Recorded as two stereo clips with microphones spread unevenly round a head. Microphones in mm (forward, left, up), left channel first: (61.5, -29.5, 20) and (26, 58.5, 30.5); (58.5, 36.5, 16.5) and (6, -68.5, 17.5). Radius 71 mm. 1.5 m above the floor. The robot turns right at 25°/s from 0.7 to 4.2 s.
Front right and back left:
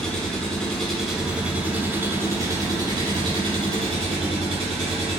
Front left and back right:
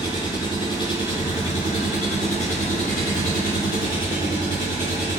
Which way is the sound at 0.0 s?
15° left.